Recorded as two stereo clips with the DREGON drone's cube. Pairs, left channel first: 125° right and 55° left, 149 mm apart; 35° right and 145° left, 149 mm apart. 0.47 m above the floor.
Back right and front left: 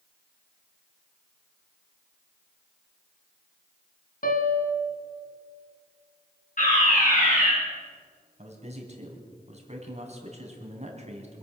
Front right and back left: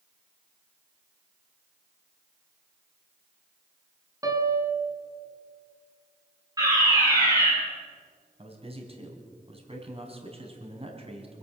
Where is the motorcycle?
No motorcycle in this recording.